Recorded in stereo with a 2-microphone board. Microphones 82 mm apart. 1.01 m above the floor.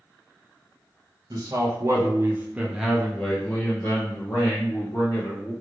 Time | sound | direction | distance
1.3 | a man speaking | 55° right (ahead or behind) | 1.1 m